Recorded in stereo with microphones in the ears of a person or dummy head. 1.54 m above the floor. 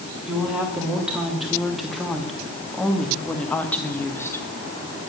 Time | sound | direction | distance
0.2 | a woman speaking | 5° right (ahead or behind) | 3.5 m